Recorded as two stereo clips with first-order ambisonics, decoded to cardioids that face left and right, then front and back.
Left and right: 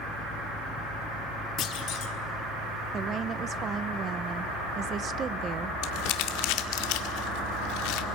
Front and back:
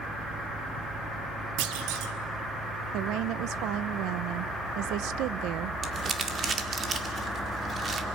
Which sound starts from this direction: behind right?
A woman speaking, at 2.9 s.